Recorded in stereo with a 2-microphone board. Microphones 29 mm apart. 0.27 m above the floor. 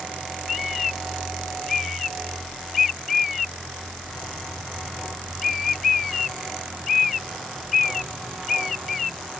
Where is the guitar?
I don't hear a guitar.